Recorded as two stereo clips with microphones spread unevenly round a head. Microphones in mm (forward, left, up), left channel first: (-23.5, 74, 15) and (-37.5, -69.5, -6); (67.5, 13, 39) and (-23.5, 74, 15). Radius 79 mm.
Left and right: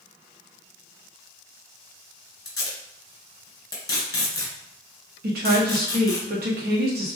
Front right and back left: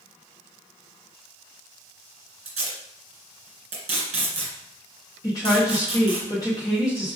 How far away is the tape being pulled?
About 2 m.